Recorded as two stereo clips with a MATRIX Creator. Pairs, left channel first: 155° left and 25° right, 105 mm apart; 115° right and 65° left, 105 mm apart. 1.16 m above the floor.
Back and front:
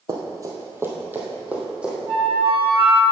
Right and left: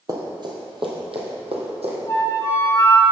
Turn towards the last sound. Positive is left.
turn(degrees=-45)